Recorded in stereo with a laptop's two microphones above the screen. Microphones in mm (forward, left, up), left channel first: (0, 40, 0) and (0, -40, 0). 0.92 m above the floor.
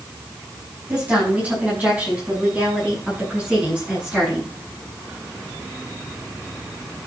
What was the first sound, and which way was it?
A woman speaking, 20° right (ahead or behind).